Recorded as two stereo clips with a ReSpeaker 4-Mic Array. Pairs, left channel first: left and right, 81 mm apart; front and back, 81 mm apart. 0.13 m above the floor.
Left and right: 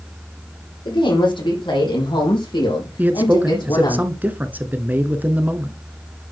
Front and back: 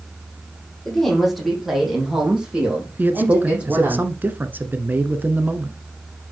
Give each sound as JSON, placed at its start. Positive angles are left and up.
{"t": 0.8, "sound": "a woman speaking", "azimuth_deg": 85, "distance_m": 5.5}
{"t": 3.0, "sound": "a man speaking", "azimuth_deg": -135, "distance_m": 1.2}